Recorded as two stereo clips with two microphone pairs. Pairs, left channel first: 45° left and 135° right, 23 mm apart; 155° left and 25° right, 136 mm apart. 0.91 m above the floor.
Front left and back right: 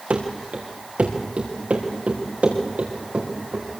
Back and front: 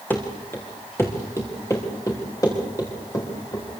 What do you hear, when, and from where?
0.1 s running footsteps: 125° right, 4.5 m; by 3.6 s 140° right, 7.5 m